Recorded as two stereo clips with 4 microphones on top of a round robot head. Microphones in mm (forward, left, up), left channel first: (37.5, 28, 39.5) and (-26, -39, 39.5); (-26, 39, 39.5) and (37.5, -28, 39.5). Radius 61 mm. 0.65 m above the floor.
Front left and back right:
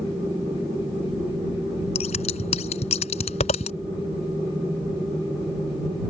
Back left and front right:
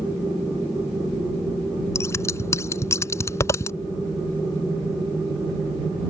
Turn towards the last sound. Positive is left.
turn(degrees=70)